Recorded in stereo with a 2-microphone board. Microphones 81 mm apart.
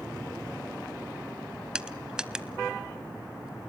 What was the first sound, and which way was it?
Crushing, 10° right (ahead or behind).